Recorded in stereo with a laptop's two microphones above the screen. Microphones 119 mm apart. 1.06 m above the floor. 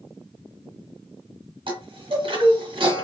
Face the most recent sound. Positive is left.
turn(degrees=-45)  # may be behind; listen again after turning